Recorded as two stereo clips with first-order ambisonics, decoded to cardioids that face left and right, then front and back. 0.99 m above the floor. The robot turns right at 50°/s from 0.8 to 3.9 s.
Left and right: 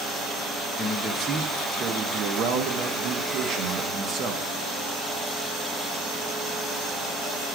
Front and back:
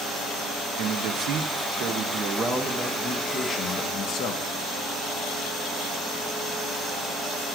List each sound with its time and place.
0.8 s a man speaking: 165° left, 0.7 m; by 4.5 s 40° right, 0.7 m